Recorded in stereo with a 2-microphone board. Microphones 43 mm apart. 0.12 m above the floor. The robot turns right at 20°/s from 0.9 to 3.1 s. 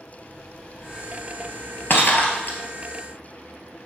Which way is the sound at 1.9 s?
55° left (ahead or behind).